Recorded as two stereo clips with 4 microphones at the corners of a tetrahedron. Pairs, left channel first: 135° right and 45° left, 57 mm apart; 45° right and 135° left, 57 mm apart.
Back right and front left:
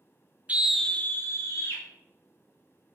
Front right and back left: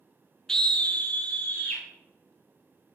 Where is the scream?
20° left, 0.5 m; by 1.8 s 105° right, 1.3 m.